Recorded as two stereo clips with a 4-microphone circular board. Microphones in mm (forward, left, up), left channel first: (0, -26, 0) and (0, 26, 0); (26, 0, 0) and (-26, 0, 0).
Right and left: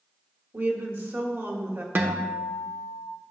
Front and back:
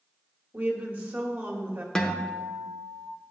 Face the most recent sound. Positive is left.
turn(degrees=70)